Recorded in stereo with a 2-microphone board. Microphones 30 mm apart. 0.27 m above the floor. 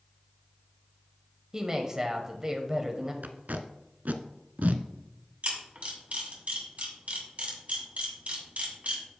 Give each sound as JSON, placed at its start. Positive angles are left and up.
{"t": 1.5, "sound": "a woman speaking", "side_deg": -20, "distance_m": 0.9}
{"t": 3.2, "sound": "tape being pulled", "side_deg": -70, "distance_m": 0.6}
{"t": 5.4, "sound": "a camera shutter", "side_deg": -55, "distance_m": 2.5}